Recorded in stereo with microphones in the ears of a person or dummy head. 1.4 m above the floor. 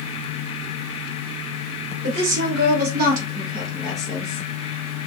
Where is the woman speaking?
70° right (ahead or behind), 1.1 m; by 4.4 s 25° left (ahead or behind), 0.7 m.